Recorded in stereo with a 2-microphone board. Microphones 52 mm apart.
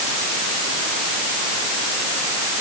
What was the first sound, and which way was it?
Only background noise.